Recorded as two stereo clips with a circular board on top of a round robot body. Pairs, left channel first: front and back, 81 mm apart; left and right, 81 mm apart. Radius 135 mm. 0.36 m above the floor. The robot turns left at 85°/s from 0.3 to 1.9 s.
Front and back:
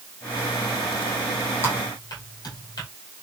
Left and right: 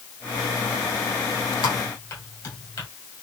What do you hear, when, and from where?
1.6 s typing on a keyboard: 60° left, 4.5 m; by 2.9 s 40° left, 4.5 m